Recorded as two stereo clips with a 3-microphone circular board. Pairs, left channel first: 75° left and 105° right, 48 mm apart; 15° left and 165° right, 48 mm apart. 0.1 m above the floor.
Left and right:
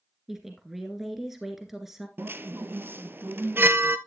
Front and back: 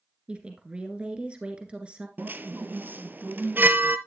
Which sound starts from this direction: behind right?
A chime, at 2.2 s.